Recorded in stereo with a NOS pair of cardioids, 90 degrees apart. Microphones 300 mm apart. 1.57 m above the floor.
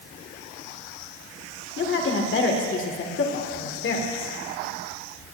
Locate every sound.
1.8 s a woman speaking: 40° left, 1.7 m